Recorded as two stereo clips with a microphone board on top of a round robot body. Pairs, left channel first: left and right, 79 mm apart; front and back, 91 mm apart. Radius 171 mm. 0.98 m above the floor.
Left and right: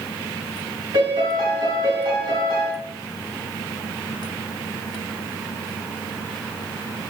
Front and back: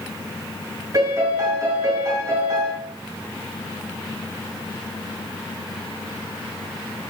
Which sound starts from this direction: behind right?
A piano, at 0.9 s.